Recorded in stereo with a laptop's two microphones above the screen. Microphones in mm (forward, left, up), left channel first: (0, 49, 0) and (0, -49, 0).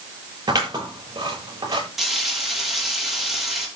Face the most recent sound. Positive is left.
turn(degrees=0)  # may be behind; listen again after turning